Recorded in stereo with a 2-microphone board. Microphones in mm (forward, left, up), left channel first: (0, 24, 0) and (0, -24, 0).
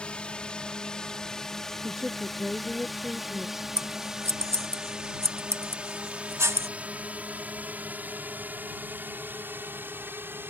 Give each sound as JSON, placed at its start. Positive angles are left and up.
{"t": 0.0, "sound": "a drone", "side_deg": 20}
{"t": 1.8, "sound": "a woman speaking", "side_deg": -10}
{"t": 3.8, "sound": "scissors", "side_deg": -60}